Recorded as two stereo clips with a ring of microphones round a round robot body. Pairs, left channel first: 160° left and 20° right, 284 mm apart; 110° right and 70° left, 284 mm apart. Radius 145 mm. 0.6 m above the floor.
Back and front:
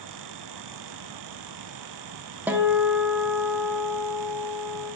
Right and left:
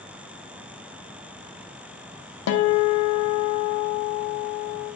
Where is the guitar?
105° right, 0.8 m.